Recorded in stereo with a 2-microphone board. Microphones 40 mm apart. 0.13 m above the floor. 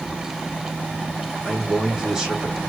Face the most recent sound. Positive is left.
turn(degrees=-15)  # may be behind; listen again after turning